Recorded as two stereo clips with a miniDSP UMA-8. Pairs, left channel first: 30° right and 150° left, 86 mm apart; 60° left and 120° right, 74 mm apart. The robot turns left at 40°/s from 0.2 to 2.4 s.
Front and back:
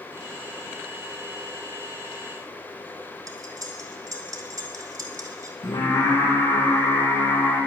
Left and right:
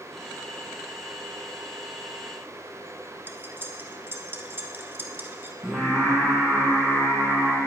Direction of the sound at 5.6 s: 45° right.